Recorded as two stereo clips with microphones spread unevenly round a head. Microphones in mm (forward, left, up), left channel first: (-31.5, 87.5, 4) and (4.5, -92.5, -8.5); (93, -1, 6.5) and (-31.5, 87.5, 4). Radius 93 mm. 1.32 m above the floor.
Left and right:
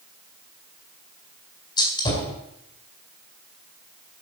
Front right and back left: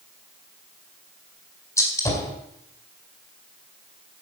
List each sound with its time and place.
1.8 s a gunshot: 35° left, 4.5 m